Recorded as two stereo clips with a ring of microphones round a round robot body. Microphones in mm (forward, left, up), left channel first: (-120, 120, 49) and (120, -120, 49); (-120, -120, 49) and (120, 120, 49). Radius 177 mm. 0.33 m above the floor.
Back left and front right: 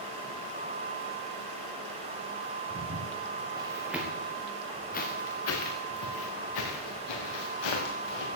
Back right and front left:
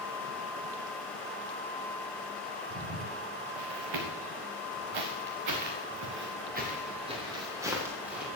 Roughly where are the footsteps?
Ahead.